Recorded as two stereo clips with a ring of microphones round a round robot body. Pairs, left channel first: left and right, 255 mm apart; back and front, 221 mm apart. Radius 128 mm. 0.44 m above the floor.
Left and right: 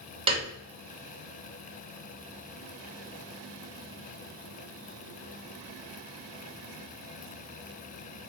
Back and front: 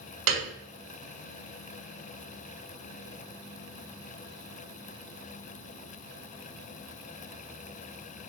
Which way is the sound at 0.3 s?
20° right.